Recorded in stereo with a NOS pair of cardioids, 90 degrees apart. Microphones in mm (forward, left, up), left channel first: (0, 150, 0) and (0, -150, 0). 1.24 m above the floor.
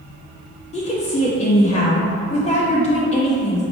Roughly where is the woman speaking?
Ahead.